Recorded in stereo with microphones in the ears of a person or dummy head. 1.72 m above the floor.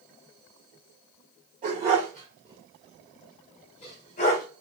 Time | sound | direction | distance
1.6 | a dog barking | 30° right (ahead or behind) | 1.6 m